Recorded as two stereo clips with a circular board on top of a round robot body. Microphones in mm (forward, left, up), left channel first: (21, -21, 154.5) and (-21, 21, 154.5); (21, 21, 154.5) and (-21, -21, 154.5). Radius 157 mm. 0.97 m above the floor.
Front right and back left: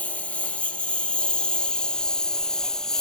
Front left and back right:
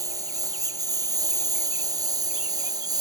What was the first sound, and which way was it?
A lawn mower, 115° right.